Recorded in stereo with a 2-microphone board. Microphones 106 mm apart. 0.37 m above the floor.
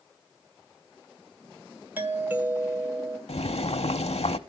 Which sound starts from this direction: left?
Boiling, at 3.3 s.